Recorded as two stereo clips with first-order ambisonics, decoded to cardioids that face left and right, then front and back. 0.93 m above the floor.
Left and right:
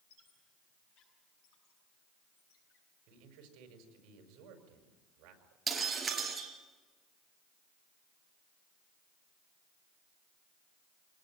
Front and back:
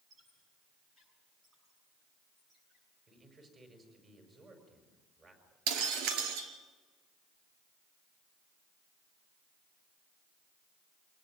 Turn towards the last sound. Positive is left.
turn(degrees=-165)